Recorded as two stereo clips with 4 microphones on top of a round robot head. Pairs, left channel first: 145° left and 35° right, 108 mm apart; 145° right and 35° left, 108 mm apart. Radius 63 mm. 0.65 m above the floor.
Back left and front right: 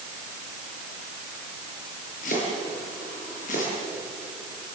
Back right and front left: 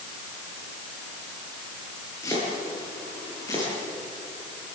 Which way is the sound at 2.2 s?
150° left.